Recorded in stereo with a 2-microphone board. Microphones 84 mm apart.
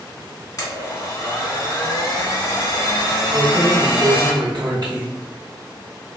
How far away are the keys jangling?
About 1.0 m.